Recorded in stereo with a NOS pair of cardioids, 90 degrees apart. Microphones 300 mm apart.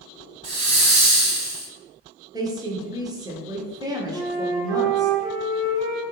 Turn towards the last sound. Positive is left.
turn(degrees=-70)